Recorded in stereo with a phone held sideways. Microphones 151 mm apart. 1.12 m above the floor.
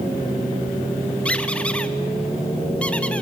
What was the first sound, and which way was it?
A squeak, 10° left (ahead or behind).